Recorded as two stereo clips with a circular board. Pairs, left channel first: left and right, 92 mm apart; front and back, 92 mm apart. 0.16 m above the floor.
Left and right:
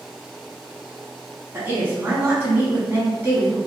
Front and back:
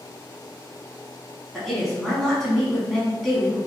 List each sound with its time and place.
1.5 s a woman speaking: 85° right, 1.1 m